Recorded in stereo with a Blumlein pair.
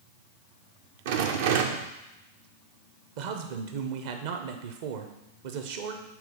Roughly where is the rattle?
Ahead right.